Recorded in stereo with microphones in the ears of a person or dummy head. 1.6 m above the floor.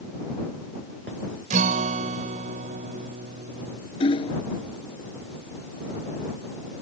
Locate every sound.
1.5 s a guitar: 50° right (ahead or behind)
4.0 s hammering: 30° left (ahead or behind)